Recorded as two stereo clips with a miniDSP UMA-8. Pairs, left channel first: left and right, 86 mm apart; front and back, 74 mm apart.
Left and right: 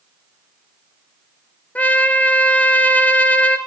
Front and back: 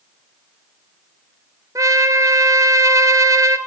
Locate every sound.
1.8 s a trumpet: 160° left, 0.6 m